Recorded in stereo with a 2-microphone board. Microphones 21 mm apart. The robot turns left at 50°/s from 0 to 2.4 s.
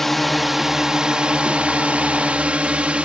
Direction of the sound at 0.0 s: 15° left.